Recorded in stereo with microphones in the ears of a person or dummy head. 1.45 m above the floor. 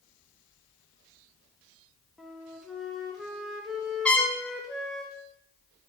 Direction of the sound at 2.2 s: 5° right (ahead or behind).